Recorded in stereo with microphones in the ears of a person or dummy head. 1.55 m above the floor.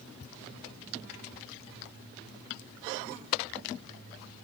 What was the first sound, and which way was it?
Only background noise.